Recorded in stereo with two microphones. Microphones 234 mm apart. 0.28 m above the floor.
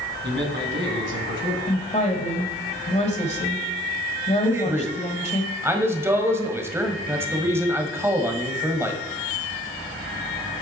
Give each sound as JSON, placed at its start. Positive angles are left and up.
{"t": 0.2, "sound": "a man speaking", "side_deg": -50, "distance_m": 2.0}
{"t": 1.7, "sound": "a woman speaking", "side_deg": 25, "distance_m": 1.3}
{"t": 4.4, "sound": "a man speaking", "side_deg": -10, "distance_m": 1.3}